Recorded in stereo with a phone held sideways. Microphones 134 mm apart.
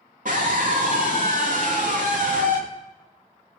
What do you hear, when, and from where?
0.2 s a scream: 70° right (ahead or behind), 2 m